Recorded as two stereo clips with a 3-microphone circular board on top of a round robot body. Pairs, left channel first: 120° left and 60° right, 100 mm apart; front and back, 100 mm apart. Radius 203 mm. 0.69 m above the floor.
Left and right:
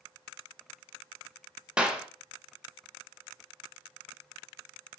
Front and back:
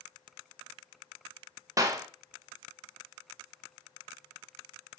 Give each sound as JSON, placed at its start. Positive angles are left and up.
{"t": 1.8, "sound": "a clap", "azimuth_deg": -135, "distance_m": 0.7}